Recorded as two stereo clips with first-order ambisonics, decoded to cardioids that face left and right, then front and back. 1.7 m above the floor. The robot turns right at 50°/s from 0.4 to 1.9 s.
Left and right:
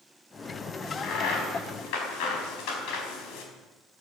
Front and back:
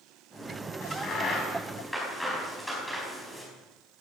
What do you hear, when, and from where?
0.8 s a crack: 35° left, 4.5 m; by 3.4 s 90° left, 4.5 m